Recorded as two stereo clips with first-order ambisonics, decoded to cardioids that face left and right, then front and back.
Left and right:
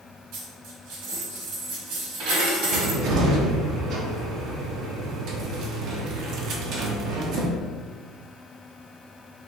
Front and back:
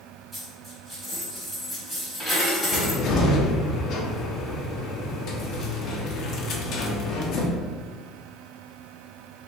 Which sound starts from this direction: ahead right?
A cupboard door, at 2.7 s.